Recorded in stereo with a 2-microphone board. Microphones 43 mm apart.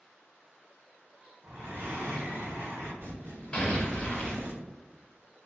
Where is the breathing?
60° right (ahead or behind), 0.8 m.